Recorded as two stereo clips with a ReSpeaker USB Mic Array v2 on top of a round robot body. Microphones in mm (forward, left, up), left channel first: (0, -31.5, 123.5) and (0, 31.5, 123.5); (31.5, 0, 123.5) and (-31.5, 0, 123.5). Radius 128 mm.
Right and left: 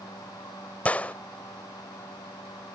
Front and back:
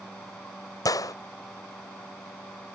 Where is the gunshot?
20° right.